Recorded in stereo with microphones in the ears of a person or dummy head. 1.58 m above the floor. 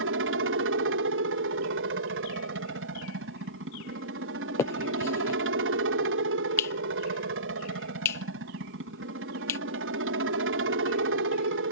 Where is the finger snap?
15° left (ahead or behind).